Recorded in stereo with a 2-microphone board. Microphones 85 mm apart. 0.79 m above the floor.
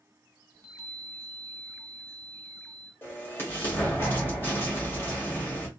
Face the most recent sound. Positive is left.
turn(degrees=25)  # may be behind; listen again after turning